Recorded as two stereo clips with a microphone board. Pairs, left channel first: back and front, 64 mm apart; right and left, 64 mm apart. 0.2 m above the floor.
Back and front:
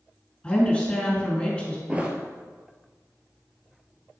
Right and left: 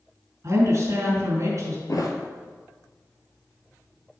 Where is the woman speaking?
105° left, 2.5 m.